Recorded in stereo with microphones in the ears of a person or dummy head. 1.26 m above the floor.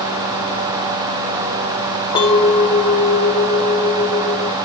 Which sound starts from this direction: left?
A clink, at 2.1 s.